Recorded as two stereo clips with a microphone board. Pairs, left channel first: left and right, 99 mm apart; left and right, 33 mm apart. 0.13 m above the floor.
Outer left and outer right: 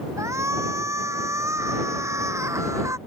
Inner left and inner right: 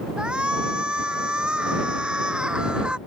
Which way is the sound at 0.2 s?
30° right (ahead or behind).